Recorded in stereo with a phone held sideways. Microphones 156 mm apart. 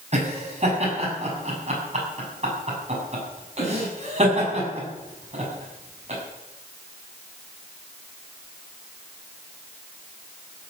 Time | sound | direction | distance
0.1 | laughter | 45° right (ahead or behind) | 7 m